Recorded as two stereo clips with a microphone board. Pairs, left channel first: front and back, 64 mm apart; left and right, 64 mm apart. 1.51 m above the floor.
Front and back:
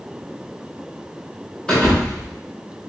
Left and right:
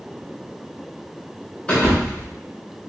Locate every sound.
1.7 s a thud: 50° left, 1.0 m